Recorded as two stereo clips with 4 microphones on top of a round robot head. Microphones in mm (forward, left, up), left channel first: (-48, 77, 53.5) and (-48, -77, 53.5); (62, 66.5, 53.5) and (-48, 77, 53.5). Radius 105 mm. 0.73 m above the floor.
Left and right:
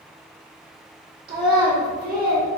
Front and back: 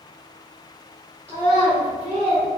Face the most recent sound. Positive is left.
turn(degrees=-115)